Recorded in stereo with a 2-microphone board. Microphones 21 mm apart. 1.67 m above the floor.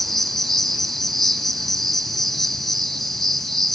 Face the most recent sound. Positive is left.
turn(degrees=5)  # may be behind; listen again after turning